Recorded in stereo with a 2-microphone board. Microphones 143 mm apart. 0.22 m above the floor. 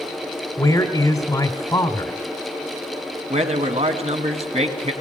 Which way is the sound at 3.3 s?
50° right (ahead or behind).